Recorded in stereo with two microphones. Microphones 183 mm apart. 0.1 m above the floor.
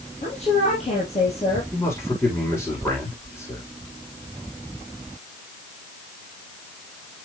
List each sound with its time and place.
0.2 s a woman speaking: 35° left (ahead or behind), 3 m
1.7 s a man speaking: 15° left (ahead or behind), 6.5 m